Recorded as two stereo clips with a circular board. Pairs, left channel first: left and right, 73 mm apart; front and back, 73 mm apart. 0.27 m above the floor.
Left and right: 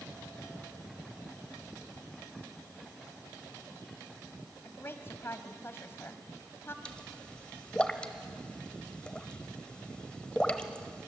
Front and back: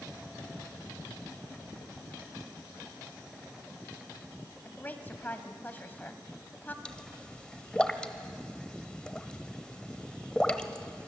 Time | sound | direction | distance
4.7 | a woman speaking | 55° left | 1.7 m
6.8 | a pop | 50° left | 1.4 m